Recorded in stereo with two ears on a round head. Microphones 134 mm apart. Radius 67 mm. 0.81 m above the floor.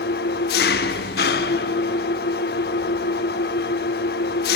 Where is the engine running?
70° left (ahead or behind), 0.8 m.